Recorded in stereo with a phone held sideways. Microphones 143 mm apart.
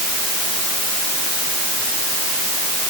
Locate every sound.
Only background noise.